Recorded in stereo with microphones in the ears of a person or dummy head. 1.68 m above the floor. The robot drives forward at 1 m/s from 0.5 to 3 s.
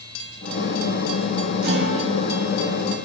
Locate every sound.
1.6 s a guitar: 50° right (ahead or behind), 1.4 m; by 3.1 s 25° right (ahead or behind), 2.5 m